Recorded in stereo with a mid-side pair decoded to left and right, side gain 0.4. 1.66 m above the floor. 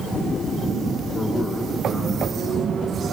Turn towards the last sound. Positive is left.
turn(degrees=45)